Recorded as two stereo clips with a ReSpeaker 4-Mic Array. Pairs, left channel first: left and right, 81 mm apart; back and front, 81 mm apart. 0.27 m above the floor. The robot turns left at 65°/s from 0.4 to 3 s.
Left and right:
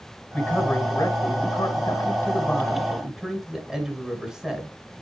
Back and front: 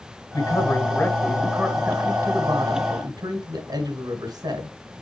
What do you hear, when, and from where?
0.3 s a man speaking: 170° left, 2 m; by 4.7 s straight ahead, 2 m